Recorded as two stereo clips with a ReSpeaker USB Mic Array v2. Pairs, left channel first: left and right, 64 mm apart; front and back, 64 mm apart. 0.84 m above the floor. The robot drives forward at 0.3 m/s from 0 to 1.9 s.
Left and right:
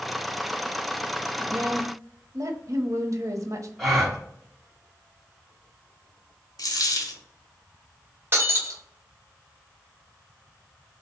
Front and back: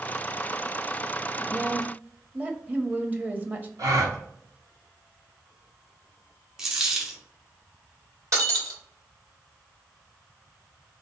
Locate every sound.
1.4 s a woman speaking: 110° right, 0.7 m; by 3.7 s 120° right, 0.7 m
3.8 s a gasp: straight behind, 1.0 m
6.6 s a dropped coin: 95° left, 0.8 m
8.3 s breaking glass: 145° right, 1.4 m